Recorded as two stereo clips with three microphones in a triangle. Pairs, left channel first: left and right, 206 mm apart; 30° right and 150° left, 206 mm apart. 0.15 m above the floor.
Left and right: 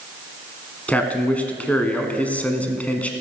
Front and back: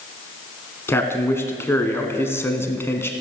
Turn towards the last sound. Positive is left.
turn(degrees=20)